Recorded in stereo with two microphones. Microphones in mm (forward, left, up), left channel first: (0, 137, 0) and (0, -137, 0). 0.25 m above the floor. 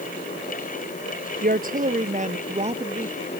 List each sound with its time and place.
1.4 s a woman speaking: 30° right (ahead or behind); by 3.1 s 20° right (ahead or behind)